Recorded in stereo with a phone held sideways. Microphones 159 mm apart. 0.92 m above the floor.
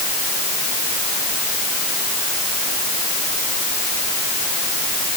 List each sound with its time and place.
Only background noise.